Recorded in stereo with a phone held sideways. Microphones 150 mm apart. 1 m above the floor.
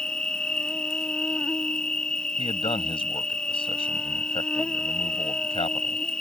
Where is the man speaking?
35° left (ahead or behind).